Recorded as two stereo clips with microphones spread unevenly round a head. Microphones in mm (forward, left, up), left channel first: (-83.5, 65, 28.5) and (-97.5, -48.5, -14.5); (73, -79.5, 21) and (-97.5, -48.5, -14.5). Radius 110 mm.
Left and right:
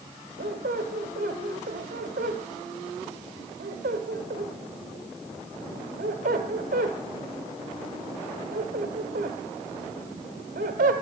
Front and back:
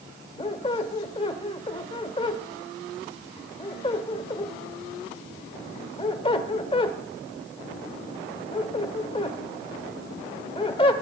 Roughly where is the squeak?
Ahead right.